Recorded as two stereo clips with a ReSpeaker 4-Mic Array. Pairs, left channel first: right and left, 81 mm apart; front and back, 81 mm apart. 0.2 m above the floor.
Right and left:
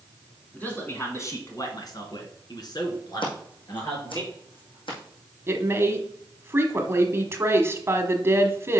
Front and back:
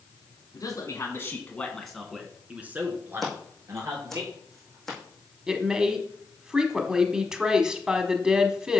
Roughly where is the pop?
No pop in this recording.